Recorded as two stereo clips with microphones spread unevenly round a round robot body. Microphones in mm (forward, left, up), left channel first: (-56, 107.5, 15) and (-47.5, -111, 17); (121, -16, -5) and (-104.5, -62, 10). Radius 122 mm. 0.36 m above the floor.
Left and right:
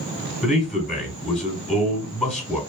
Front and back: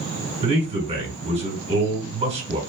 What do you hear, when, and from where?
0.4 s a man speaking: 170° left, 1.5 m